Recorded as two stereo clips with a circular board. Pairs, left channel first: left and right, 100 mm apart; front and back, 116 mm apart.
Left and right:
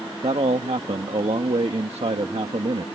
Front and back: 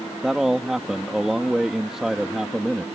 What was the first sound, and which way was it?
A man speaking, 95° right.